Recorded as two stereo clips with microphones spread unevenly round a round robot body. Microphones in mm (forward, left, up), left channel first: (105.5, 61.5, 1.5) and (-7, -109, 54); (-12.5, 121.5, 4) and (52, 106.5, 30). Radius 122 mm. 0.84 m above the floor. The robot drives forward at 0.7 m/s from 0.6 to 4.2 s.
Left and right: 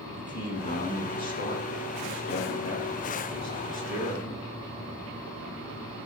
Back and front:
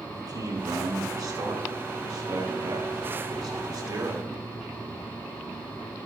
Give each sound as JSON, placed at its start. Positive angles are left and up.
{"t": 0.1, "sound": "a man speaking", "azimuth_deg": 10, "distance_m": 9.0}